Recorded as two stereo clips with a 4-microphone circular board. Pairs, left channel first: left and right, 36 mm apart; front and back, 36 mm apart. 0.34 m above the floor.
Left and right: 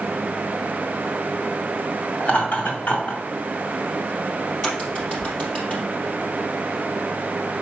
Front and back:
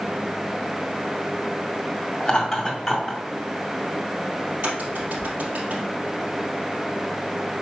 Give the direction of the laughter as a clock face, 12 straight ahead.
10 o'clock.